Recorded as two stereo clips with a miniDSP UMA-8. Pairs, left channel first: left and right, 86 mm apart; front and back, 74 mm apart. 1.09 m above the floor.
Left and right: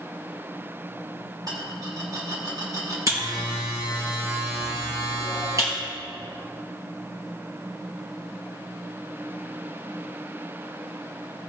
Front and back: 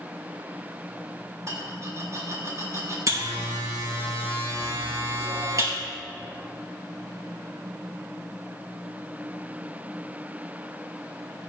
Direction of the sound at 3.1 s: 140° right.